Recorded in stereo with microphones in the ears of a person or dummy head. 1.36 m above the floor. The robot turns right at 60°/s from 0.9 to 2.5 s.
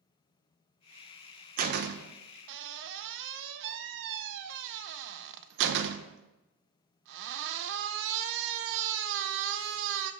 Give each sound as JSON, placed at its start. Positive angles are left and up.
{"t": 1.6, "sound": "a door slam", "azimuth_deg": -135, "distance_m": 0.6}